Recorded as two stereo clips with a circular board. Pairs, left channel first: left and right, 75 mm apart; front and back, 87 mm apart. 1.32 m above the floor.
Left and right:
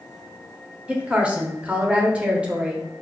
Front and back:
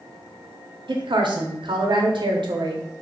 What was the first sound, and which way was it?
A woman speaking, 160° right.